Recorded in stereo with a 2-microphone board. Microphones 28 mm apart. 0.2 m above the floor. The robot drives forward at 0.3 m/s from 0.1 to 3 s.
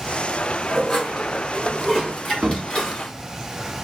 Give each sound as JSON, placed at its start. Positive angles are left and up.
{"t": 0.7, "sound": "dishes clattering", "side_deg": 25, "distance_m": 1.3}
{"t": 2.4, "sound": "a cupboard door", "side_deg": -40, "distance_m": 0.6}